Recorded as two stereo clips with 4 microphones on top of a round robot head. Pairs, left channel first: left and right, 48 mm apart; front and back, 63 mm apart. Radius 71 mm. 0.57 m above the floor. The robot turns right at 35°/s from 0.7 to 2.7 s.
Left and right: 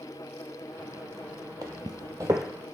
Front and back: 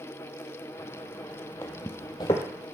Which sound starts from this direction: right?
Footsteps, at 1.6 s.